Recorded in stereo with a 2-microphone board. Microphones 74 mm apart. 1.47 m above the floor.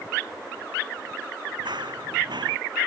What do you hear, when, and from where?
1.6 s running footsteps: 75° right (ahead or behind)